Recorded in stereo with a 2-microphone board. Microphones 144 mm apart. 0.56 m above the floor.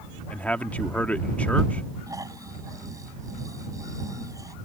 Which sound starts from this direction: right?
Snoring, at 2.1 s.